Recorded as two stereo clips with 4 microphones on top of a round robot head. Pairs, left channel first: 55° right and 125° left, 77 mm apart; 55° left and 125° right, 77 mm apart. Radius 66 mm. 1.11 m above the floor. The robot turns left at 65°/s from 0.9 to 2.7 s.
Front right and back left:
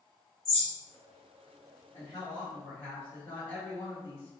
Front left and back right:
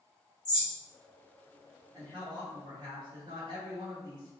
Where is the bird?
20° left, 1.7 m.